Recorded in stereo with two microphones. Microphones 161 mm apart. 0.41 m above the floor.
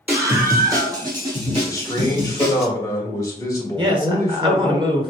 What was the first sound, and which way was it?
A scream, 15° right (ahead or behind).